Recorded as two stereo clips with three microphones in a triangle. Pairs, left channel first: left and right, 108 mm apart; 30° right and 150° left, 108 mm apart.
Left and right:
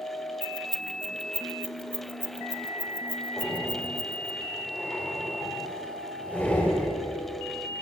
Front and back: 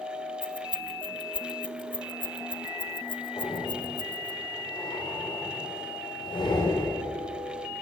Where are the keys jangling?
10° left, 0.8 m.